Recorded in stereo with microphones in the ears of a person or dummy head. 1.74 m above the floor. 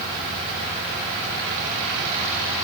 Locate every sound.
Only background noise.